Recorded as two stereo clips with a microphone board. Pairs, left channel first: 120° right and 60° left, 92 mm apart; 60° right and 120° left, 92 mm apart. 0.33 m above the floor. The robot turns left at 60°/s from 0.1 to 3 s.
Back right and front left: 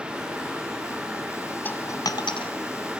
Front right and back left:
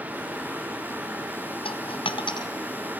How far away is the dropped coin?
About 1.1 m.